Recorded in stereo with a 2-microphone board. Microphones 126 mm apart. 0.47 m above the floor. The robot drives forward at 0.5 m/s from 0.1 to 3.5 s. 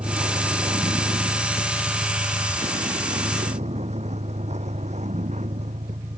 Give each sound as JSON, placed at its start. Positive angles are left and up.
{"t": 0.0, "sound": "a vehicle", "side_deg": -40}